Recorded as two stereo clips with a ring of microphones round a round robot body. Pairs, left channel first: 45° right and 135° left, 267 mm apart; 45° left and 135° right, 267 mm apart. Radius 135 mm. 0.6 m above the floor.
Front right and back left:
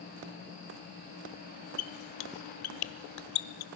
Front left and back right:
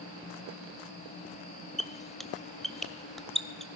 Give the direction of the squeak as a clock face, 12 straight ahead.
1 o'clock.